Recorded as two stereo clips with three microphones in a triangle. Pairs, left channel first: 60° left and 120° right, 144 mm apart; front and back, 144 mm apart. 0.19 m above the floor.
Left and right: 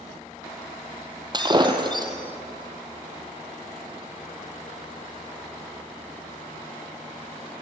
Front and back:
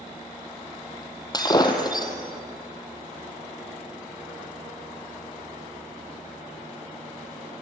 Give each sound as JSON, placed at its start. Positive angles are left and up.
{"t": 1.3, "sound": "breaking glass", "azimuth_deg": -60, "distance_m": 2.0}